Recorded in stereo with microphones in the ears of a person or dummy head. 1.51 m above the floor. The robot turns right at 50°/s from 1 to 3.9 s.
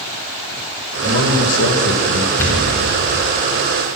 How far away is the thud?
About 3.5 m.